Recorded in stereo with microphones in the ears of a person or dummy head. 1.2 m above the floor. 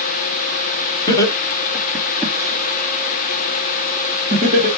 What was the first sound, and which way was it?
Laughter, 20° left (ahead or behind).